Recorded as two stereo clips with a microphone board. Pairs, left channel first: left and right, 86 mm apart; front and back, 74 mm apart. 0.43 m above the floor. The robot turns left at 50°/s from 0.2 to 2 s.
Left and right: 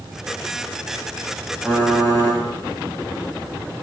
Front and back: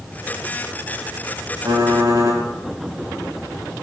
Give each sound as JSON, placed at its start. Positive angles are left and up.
{"t": 1.6, "sound": "typing on a keyboard", "azimuth_deg": 170, "distance_m": 0.9}